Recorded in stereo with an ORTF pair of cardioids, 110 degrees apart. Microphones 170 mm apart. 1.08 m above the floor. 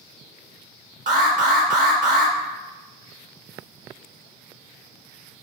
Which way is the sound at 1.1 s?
50° right.